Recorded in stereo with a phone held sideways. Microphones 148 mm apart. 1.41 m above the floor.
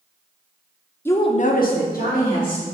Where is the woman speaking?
15° left (ahead or behind), 0.5 m; by 2.6 s 65° left (ahead or behind), 1.5 m.